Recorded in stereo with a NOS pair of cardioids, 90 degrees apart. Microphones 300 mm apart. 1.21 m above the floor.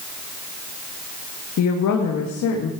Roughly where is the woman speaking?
Ahead left.